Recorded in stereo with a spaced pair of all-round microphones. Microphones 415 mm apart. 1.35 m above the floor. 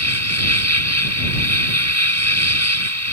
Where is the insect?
35° right (ahead or behind).